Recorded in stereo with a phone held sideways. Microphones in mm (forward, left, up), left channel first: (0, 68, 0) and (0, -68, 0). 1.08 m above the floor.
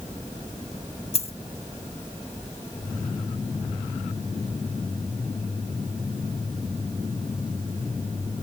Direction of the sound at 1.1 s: 50° left (ahead or behind).